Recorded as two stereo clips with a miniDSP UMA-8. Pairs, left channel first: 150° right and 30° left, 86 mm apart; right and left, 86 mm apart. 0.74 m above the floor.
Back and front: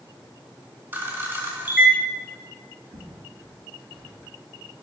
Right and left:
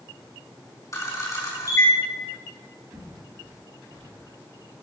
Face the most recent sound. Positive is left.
turn(degrees=60)